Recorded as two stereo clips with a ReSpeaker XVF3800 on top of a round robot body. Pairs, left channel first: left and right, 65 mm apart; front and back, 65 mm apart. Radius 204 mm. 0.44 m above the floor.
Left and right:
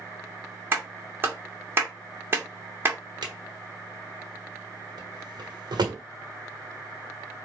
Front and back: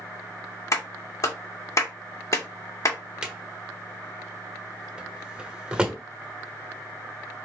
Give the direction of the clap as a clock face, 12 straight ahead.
1 o'clock.